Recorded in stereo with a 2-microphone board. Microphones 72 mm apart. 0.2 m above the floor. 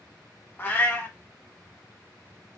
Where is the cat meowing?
25° left (ahead or behind), 0.7 m.